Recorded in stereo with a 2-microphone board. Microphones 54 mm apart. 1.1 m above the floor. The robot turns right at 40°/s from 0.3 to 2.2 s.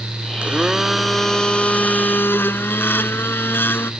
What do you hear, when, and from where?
0.4 s a blender: 25° right; by 3.9 s 45° left